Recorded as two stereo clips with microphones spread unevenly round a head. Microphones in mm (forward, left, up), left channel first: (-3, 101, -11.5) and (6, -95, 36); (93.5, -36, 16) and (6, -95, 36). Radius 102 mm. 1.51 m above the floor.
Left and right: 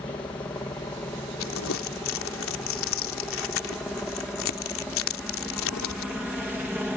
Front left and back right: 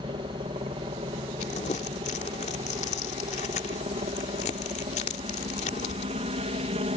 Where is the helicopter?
165° left; by 7.0 s 175° right.